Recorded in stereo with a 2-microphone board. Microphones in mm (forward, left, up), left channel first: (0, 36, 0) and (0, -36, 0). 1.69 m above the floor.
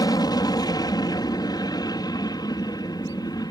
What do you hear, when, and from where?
0.0 s an aircraft: 65° left (ahead or behind)